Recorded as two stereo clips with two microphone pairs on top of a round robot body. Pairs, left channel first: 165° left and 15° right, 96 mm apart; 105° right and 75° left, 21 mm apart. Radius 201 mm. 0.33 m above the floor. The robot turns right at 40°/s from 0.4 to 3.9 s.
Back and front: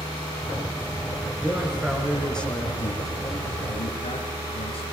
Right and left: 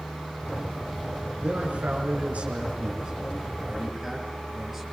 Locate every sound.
1.4 s a man speaking: 45° left, 6 m; by 4.8 s 145° left, 6 m